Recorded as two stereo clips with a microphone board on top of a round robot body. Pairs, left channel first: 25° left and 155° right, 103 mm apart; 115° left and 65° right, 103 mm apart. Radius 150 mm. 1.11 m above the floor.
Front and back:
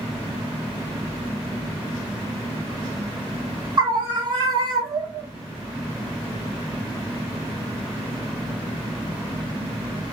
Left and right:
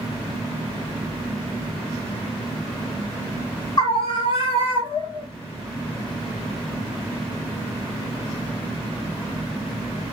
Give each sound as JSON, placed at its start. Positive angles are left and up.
{"t": 3.8, "sound": "a scream", "azimuth_deg": 160, "distance_m": 1.0}